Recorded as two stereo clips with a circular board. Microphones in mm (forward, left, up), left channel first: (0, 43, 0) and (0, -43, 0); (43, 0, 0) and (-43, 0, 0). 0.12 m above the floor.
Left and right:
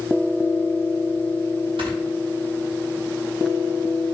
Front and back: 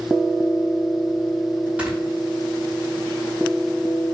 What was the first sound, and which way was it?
Snoring, 105° right.